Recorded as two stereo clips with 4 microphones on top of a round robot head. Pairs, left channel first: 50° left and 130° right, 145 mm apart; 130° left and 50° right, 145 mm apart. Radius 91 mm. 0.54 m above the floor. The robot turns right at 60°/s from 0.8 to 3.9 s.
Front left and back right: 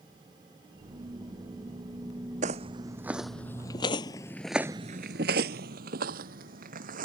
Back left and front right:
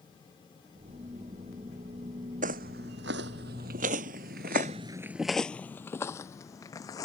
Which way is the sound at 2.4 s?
85° right.